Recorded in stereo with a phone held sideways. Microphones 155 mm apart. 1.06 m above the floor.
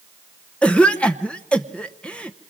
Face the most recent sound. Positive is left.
turn(degrees=10)  # may be behind; listen again after turning